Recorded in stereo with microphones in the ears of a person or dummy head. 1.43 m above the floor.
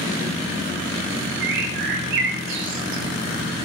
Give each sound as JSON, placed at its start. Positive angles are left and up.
{"t": 1.4, "sound": "a bird", "side_deg": -60, "distance_m": 0.9}